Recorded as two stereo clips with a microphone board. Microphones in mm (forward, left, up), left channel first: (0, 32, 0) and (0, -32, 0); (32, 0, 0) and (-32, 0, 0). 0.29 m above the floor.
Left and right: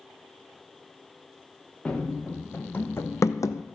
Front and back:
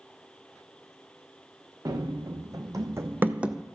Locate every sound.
1.9 s running footsteps: 165° left, 1.4 m; by 3.6 s 95° left, 0.6 m